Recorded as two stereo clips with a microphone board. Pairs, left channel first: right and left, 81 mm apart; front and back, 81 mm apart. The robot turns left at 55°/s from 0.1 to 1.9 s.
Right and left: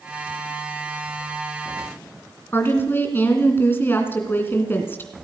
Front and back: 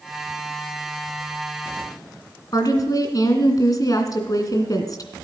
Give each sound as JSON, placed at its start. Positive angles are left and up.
{"t": 2.5, "sound": "a woman speaking", "azimuth_deg": -30, "distance_m": 2.5}